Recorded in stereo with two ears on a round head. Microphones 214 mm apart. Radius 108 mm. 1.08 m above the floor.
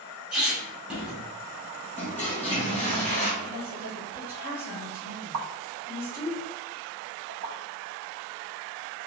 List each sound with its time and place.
0.3 s a squeak: 5° right (ahead or behind), 1.8 m
2.0 s a toilet flushing: 10° left (ahead or behind), 1.4 m
3.4 s a woman speaking: 10° right (ahead or behind), 1.8 m
5.3 s a pop: 65° right (ahead or behind), 0.6 m